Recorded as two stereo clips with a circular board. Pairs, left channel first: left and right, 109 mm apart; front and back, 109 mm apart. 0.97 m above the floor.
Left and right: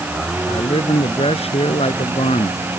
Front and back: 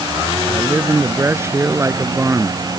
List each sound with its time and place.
0.5 s a man speaking: 115° left